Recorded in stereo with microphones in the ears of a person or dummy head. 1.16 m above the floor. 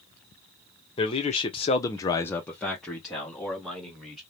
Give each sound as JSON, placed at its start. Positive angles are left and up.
{"t": 1.0, "sound": "a man speaking", "side_deg": 25, "distance_m": 0.7}